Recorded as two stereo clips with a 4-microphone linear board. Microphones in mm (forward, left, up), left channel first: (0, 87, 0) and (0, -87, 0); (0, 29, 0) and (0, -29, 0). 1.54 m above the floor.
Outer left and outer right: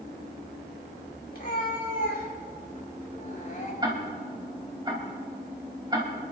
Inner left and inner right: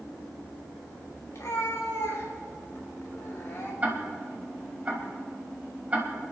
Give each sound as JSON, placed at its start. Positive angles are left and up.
{"t": 1.3, "sound": "a cat meowing", "side_deg": 55, "distance_m": 3.0}
{"t": 3.8, "sound": "ticking", "side_deg": -25, "distance_m": 3.5}